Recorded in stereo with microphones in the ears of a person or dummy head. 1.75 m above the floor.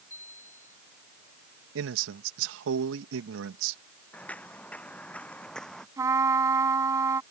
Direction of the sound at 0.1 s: 40° left (ahead or behind).